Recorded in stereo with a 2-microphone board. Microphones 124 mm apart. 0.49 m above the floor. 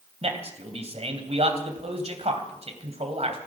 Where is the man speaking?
55° right (ahead or behind), 3 m.